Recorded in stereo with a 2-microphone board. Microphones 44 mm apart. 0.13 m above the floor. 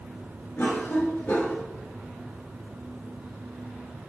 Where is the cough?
55° left (ahead or behind), 3 m.